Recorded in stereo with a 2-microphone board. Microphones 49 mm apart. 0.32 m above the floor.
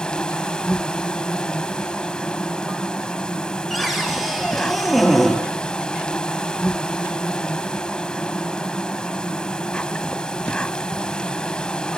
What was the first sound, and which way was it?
An insect, 20° left (ahead or behind).